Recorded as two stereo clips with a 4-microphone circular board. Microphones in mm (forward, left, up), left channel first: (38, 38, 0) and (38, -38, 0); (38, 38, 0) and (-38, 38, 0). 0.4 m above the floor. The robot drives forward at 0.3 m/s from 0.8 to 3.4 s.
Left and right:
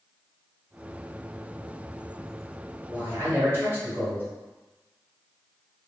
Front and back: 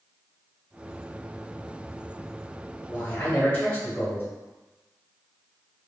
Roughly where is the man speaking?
Ahead right.